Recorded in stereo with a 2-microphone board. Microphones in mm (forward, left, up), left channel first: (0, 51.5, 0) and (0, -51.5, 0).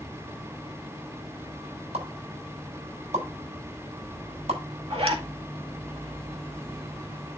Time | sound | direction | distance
1.9 | a pop | 85° right | 7 m
4.9 | a zipper | 70° right (ahead or behind) | 2 m